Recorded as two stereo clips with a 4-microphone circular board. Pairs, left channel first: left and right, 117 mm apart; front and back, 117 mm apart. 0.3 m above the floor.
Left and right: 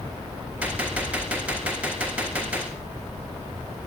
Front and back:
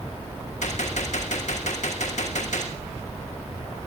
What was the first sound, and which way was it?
A gunshot, 10° right.